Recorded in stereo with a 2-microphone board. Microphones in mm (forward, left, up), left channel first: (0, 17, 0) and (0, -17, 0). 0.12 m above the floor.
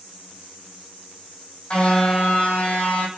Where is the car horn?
35° left (ahead or behind), 2.5 m; by 3.1 s 55° left (ahead or behind), 3 m.